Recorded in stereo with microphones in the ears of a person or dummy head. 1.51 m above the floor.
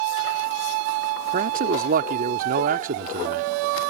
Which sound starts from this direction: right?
A man speaking, at 1.3 s.